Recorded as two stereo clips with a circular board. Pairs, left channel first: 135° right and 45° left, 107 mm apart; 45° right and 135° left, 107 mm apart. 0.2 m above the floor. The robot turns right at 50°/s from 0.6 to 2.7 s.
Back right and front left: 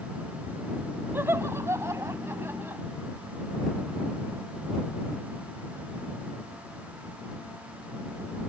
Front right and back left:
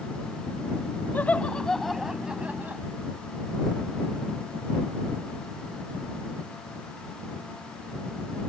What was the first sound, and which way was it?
Laughter, 5° left.